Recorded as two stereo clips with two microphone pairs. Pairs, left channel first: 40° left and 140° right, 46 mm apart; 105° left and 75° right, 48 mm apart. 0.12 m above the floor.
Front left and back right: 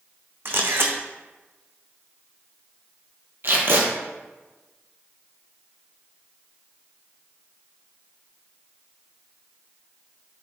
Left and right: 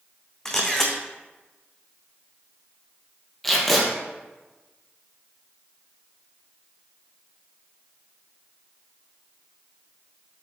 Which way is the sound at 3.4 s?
170° right.